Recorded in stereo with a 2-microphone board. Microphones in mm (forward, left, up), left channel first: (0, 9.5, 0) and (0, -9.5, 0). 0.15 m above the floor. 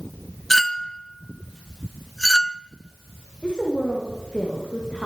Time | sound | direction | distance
0.5 | a clink | 15° left (ahead or behind) | 0.8 m
3.4 | a woman speaking | 55° left (ahead or behind) | 9.5 m